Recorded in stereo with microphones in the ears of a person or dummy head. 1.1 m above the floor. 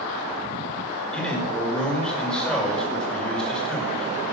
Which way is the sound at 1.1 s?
5° left (ahead or behind).